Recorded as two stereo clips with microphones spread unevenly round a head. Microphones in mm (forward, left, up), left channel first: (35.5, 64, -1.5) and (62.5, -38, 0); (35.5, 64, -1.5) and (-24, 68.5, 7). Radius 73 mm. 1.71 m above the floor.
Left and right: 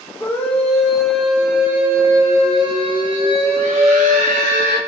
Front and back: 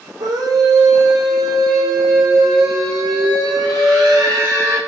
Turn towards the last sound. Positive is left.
turn(degrees=-110)